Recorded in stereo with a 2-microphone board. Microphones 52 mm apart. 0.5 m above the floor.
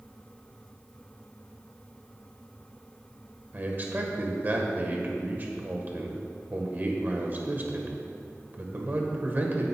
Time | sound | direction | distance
3.5 | a man speaking | 40° right (ahead or behind) | 1.8 m